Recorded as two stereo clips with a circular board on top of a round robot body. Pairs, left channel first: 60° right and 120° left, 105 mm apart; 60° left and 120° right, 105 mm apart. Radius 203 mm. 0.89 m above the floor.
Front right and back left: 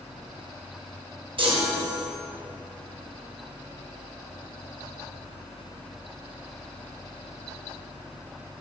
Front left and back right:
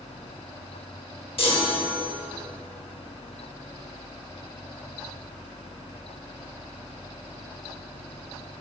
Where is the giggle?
No giggle in this recording.